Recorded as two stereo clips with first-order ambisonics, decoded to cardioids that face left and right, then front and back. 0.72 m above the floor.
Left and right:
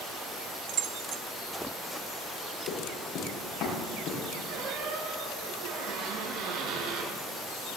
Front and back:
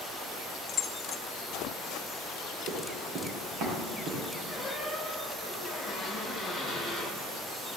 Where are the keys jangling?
70° right, 1.2 m.